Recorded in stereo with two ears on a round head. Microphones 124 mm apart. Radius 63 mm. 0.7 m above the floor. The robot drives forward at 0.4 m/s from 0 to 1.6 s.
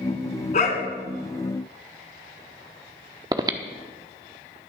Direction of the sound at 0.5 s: 55° left (ahead or behind).